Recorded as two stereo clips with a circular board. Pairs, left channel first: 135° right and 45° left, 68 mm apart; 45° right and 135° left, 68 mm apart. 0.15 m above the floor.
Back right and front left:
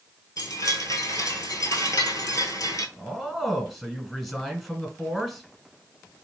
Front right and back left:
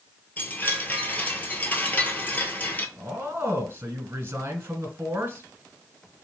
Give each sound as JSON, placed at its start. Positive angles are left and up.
{"t": 0.4, "sound": "a chime", "azimuth_deg": -110, "distance_m": 0.7}
{"t": 3.0, "sound": "a man speaking", "azimuth_deg": 135, "distance_m": 1.3}